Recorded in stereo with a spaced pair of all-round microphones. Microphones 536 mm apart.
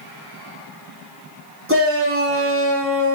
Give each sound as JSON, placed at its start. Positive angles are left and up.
{"t": 1.7, "sound": "a shout", "side_deg": -25, "distance_m": 3.5}